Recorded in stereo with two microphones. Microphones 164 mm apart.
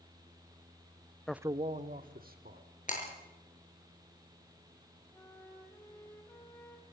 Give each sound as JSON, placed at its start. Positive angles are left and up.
{"t": 1.3, "sound": "a man speaking", "side_deg": 5, "distance_m": 0.6}
{"t": 2.9, "sound": "breaking glass", "side_deg": 50, "distance_m": 6.5}
{"t": 5.1, "sound": "a flute", "side_deg": 15, "distance_m": 4.0}